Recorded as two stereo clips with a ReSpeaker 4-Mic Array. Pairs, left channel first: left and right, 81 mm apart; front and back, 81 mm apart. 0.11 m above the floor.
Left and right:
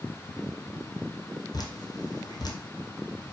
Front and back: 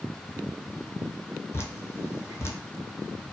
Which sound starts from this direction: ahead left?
Dripping, at 1.5 s.